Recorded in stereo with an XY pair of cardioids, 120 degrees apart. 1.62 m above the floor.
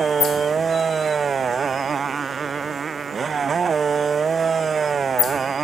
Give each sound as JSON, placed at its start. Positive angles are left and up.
{"t": 0.0, "sound": "a motorcycle", "azimuth_deg": -35}